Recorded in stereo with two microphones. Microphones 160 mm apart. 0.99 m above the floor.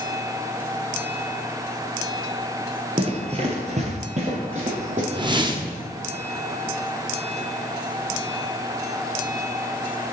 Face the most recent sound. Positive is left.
turn(degrees=-30)  # may be behind; listen again after turning